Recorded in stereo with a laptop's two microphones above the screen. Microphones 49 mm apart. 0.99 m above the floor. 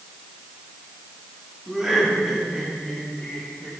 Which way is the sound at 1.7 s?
10° right (ahead or behind).